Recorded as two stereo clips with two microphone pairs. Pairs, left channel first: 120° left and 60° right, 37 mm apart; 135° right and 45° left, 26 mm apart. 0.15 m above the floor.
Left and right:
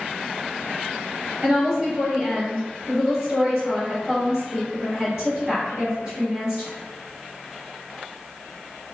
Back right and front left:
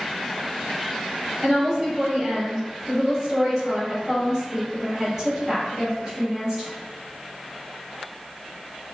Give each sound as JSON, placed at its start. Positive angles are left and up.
{"t": 1.4, "sound": "a woman speaking", "azimuth_deg": -10, "distance_m": 1.3}